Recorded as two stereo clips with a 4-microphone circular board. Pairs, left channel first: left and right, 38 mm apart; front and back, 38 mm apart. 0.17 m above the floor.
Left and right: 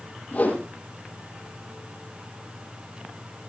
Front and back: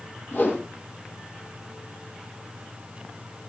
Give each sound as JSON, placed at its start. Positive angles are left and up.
{"t": 0.3, "sound": "a whoosh", "azimuth_deg": 40, "distance_m": 5.5}